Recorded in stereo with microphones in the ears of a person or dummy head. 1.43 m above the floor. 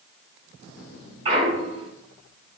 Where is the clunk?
30° right (ahead or behind), 3.5 m.